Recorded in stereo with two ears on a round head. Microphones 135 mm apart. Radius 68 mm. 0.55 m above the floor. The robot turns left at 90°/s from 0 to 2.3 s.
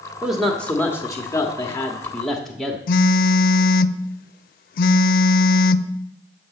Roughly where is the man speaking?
Centre.